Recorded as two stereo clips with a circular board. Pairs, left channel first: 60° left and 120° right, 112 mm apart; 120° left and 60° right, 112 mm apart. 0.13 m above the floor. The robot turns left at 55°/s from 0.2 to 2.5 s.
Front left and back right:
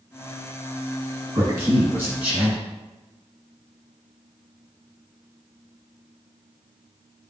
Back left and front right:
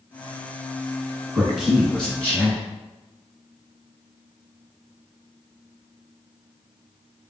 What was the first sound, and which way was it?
A man speaking, 130° right.